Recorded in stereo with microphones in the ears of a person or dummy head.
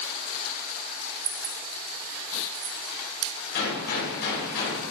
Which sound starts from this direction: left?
A gunshot, at 3.5 s.